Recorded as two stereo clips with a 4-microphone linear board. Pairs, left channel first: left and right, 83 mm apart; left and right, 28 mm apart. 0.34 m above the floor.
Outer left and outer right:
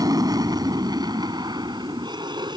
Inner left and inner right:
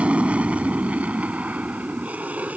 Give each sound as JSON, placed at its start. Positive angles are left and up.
{"t": 0.0, "sound": "an aircraft", "side_deg": -50}